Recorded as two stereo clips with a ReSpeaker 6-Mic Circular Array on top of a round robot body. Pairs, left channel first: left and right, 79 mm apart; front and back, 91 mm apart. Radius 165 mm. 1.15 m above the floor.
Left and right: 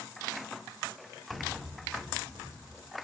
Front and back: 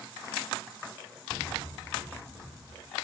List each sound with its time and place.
1.3 s tapping: 125° right, 2 m